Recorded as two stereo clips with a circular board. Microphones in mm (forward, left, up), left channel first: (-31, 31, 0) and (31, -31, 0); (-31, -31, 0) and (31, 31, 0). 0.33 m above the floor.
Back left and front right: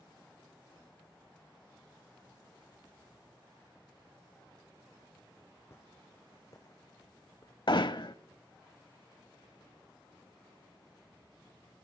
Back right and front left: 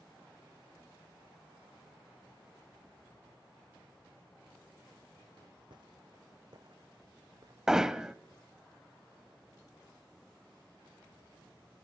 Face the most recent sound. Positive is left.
turn(degrees=125)